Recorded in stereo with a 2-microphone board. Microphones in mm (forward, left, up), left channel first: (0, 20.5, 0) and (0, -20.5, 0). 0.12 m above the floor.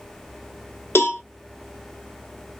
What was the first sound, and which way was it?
A cowbell, 70° left (ahead or behind).